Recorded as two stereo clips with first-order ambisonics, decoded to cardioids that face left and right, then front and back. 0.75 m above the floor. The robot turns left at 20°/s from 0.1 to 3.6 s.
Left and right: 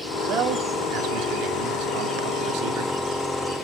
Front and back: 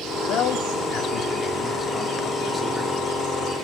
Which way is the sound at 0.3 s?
40° right.